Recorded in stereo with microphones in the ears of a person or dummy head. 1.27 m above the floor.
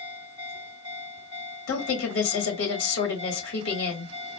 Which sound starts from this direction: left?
A woman speaking, at 1.7 s.